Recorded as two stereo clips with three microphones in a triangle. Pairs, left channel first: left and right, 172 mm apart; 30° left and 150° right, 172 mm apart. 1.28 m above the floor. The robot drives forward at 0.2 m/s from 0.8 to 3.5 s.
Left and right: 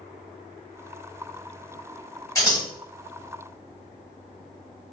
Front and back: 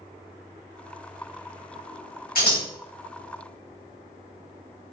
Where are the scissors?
25° left, 1.5 m.